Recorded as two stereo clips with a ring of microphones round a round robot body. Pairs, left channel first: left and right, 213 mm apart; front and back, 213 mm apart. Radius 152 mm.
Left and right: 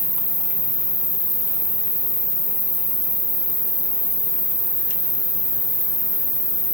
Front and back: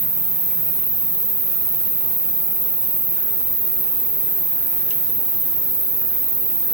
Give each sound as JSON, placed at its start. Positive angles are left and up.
{"t": 0.0, "sound": "an insect", "azimuth_deg": -165, "distance_m": 4.0}